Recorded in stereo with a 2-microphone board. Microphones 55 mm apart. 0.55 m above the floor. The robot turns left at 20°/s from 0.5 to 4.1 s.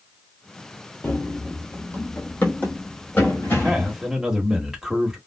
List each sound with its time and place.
1.0 s running footsteps: 45° left (ahead or behind), 0.7 m
3.5 s a man speaking: 10° right (ahead or behind), 1.3 m